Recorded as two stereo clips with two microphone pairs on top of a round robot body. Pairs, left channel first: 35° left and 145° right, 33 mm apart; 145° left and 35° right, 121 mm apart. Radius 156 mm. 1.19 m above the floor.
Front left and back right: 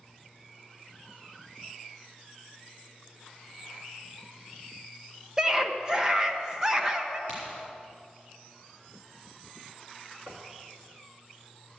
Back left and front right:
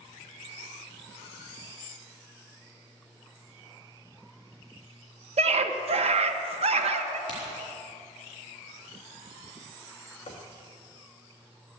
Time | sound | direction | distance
5.4 | a scream | 70° right | 1.4 m
7.3 | a crack | 160° right | 4.5 m
10.3 | knocking | 165° right | 1.4 m